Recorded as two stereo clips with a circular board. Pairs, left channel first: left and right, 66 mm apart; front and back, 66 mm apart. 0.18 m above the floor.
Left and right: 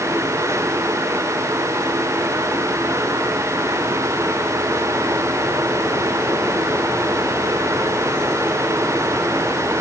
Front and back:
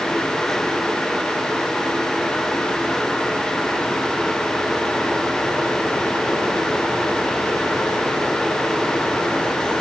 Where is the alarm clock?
No alarm clock in this recording.